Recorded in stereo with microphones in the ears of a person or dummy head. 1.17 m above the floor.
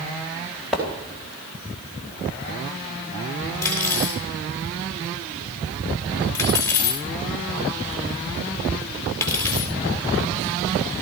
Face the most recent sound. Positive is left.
turn(degrees=15)  # may be behind; listen again after turning